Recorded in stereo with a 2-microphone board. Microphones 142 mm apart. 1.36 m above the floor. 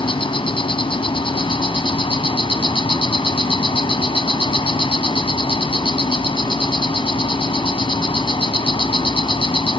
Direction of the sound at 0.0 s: 35° left (ahead or behind).